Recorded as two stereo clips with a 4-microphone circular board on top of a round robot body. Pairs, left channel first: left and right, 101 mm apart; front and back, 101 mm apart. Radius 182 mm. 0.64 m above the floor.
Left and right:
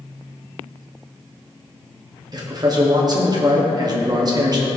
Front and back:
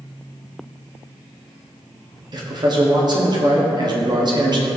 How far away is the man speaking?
About 1.4 m.